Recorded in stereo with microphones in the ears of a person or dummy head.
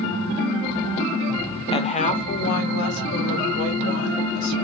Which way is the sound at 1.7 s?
25° left (ahead or behind).